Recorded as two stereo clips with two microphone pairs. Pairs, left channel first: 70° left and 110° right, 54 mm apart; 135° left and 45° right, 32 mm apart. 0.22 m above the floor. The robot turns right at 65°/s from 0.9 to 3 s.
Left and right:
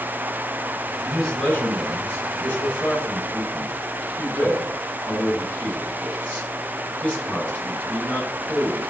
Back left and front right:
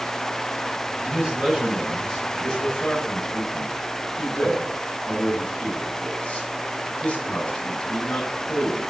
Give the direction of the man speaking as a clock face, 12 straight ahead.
1 o'clock.